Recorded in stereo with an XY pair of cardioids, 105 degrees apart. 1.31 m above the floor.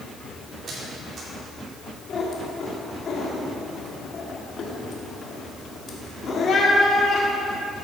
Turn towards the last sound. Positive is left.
turn(degrees=55)